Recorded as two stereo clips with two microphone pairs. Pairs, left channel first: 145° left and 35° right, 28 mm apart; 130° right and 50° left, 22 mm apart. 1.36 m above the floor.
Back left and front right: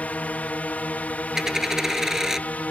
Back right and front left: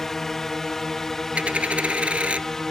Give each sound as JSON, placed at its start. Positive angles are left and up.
{"t": 0.0, "sound": "a drone", "azimuth_deg": 160}
{"t": 1.4, "sound": "a dropped coin", "azimuth_deg": 40}